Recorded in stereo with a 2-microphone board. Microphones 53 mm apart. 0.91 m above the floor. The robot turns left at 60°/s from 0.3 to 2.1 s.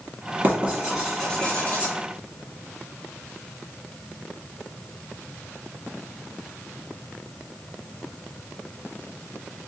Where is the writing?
40° right (ahead or behind), 1.7 m; by 1.9 s 45° left (ahead or behind), 1.7 m.